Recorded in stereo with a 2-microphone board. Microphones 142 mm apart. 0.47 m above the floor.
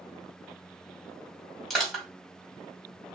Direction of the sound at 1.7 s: Centre (ahead or behind).